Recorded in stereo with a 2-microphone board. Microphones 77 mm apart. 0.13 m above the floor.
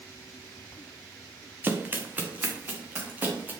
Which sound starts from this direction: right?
Running footsteps, at 1.6 s.